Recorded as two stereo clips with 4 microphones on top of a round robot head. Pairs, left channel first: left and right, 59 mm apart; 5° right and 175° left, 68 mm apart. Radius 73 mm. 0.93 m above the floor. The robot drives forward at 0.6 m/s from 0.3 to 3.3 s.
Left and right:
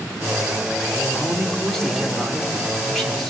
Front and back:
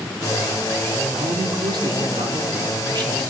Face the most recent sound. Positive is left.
turn(degrees=175)